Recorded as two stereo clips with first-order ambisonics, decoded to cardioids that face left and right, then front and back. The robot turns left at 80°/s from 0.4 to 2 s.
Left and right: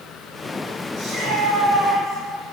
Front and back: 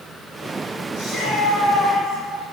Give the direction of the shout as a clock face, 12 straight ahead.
2 o'clock.